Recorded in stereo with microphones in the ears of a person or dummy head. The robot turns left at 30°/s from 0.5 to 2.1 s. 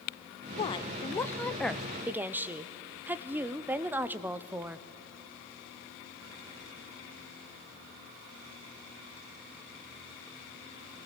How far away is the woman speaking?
About 0.6 m.